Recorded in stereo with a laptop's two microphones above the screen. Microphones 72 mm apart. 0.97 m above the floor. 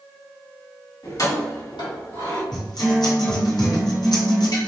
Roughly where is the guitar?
Left.